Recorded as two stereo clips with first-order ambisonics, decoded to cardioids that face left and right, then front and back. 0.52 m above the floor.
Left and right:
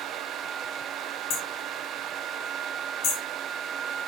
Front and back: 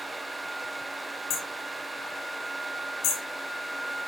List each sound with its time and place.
1.3 s hammering: 45° left, 5.5 m